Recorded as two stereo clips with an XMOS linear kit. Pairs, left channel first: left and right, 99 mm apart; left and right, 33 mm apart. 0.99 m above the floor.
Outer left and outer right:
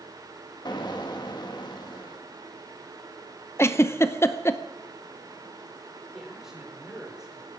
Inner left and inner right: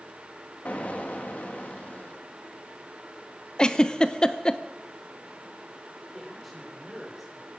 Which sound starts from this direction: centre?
A man speaking, at 6.1 s.